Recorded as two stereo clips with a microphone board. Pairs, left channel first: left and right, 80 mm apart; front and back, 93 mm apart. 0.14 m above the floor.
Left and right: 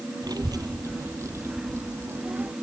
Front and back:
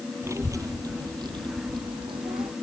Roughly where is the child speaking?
Behind right.